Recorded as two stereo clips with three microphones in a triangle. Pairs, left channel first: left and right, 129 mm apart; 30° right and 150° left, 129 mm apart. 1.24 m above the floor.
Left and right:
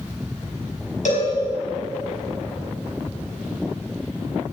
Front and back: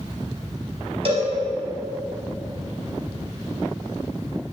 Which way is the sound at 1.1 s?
105° left.